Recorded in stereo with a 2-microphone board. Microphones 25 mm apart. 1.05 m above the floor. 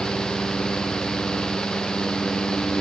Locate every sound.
Only background noise.